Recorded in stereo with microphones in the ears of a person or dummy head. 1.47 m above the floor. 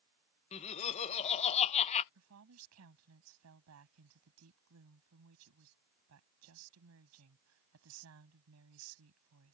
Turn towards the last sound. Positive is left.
turn(degrees=-75)  # may be behind; listen again after turning